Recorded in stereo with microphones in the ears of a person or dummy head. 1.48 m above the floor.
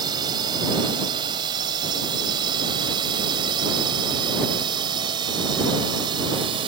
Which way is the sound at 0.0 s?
20° right (ahead or behind).